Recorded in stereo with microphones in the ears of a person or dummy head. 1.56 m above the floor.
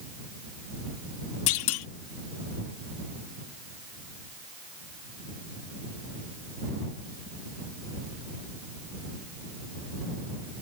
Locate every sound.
1.5 s a clunk: 85° left